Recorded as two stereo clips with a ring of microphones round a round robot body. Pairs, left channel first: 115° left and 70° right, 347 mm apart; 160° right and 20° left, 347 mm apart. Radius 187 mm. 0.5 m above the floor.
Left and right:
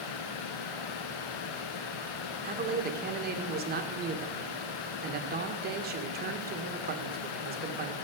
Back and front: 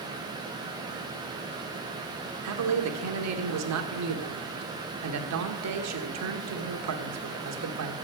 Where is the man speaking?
10° right, 1.5 m.